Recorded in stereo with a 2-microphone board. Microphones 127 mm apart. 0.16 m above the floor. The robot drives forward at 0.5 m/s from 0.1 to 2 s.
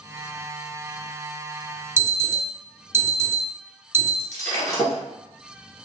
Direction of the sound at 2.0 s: 20° right (ahead or behind).